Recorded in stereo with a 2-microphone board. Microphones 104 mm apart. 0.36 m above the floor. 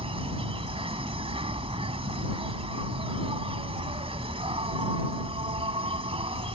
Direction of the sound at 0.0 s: 70° right (ahead or behind).